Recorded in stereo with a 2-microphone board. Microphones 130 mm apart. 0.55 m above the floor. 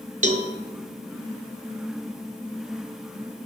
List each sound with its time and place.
0.2 s a cowbell: 65° right (ahead or behind), 1.3 m